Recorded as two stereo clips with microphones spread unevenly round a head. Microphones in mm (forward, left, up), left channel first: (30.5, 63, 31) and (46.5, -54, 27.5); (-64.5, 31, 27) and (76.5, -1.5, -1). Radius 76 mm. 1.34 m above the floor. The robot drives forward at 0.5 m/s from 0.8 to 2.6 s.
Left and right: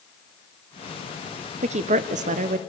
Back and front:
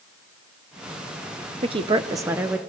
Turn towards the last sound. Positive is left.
turn(degrees=-90)